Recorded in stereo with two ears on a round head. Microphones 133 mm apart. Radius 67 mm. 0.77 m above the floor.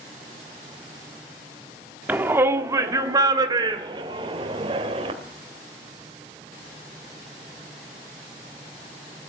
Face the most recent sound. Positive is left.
turn(degrees=-40)  # may be behind; listen again after turning